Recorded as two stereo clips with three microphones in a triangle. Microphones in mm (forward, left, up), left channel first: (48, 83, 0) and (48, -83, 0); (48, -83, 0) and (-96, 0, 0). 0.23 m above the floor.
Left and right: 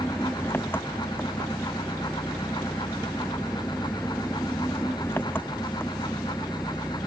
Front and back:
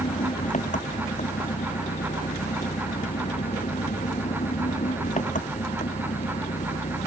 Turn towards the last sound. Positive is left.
turn(degrees=15)